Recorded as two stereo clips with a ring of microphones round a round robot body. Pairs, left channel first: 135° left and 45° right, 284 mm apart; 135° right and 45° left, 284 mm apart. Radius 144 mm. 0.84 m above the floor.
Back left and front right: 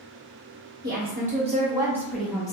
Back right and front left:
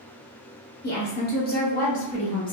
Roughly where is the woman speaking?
Right.